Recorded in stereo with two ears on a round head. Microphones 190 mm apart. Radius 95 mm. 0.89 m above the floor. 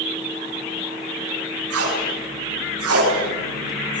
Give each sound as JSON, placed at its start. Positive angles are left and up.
{"t": 1.7, "sound": "tape being pulled", "side_deg": -80, "distance_m": 9.0}